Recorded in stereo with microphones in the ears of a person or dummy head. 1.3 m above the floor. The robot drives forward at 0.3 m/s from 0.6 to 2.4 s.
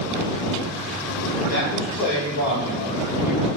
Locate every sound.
1.5 s a man speaking: 50° left (ahead or behind), 1.6 m; by 3.5 s 40° left (ahead or behind), 1.8 m